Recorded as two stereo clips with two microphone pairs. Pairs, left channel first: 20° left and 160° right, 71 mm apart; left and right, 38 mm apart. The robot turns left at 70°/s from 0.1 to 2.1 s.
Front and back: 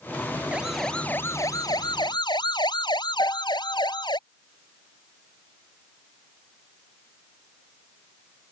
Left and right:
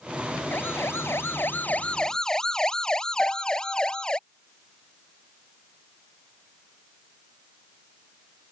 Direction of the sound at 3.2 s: 40° left.